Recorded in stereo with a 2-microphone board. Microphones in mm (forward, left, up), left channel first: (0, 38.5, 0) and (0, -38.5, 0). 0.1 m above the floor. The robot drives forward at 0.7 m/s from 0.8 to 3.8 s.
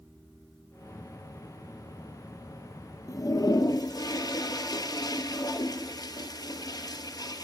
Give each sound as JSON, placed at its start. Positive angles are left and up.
{"t": 3.1, "sound": "a toilet flushing", "side_deg": 50, "distance_m": 1.1}